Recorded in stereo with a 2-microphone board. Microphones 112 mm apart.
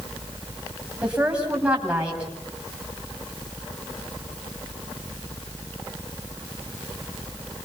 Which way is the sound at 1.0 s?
10° right (ahead or behind).